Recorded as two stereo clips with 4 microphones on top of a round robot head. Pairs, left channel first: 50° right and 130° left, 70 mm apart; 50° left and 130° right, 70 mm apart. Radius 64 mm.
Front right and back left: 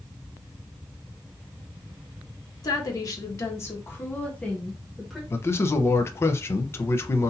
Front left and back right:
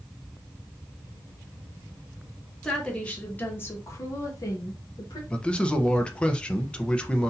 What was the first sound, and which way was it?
A woman speaking, 30° right.